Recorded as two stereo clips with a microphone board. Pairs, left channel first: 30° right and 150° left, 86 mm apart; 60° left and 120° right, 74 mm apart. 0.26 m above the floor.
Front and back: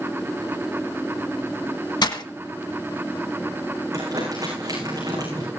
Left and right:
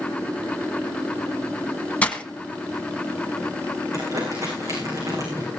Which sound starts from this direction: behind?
Crumpling, at 3.9 s.